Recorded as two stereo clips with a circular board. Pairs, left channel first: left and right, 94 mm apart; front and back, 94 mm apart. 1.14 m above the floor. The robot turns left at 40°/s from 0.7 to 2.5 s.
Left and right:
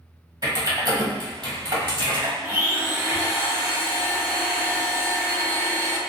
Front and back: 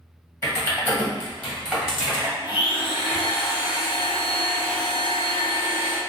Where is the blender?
25° right, 0.6 m.